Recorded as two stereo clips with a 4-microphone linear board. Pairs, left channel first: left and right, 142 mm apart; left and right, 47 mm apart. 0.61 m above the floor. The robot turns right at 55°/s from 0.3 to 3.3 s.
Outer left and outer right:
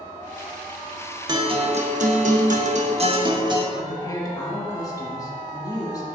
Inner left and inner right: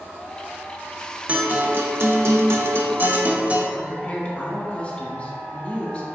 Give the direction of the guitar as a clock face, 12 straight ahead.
5 o'clock.